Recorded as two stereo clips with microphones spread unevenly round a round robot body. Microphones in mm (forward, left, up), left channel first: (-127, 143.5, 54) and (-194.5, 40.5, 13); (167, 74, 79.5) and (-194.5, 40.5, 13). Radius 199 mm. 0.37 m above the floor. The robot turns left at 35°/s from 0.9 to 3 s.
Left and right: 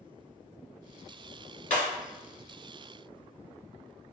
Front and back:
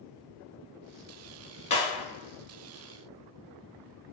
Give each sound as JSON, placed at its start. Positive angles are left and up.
{"t": 1.7, "sound": "breaking glass", "azimuth_deg": 80, "distance_m": 1.6}